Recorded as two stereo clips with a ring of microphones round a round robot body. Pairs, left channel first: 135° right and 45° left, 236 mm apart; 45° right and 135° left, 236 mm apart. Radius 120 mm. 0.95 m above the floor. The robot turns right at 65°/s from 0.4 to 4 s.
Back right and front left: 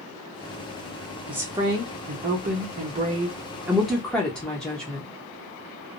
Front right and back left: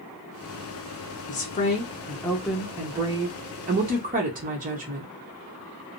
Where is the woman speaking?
35° right, 0.9 m; by 5.1 s 140° left, 0.9 m.